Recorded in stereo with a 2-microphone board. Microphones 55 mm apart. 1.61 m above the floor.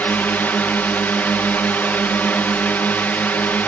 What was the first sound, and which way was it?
A drone, 30° left (ahead or behind).